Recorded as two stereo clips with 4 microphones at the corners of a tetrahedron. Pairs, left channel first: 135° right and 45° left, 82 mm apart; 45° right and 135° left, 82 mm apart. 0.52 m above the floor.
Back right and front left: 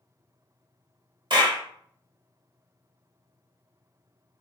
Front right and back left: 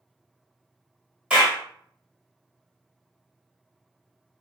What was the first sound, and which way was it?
A clap, 60° left.